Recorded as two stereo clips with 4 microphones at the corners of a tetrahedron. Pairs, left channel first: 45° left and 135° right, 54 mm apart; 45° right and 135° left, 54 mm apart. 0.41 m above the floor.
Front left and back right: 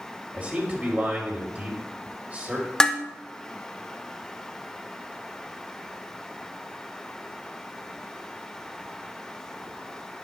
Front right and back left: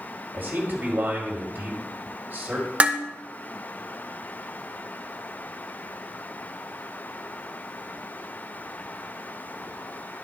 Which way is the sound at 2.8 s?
110° left.